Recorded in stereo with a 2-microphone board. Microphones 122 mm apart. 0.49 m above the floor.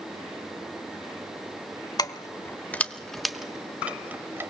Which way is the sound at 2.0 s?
30° left (ahead or behind).